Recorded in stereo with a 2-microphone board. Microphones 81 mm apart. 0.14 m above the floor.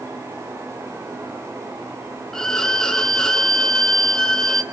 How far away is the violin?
About 1.1 m.